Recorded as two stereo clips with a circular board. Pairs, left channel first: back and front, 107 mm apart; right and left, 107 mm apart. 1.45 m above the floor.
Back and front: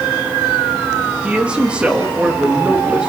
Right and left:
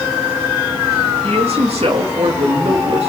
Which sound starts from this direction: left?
A man speaking, at 1.2 s.